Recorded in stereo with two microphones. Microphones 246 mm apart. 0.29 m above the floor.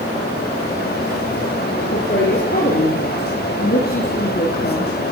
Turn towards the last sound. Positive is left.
turn(degrees=40)  # may be behind; listen again after turning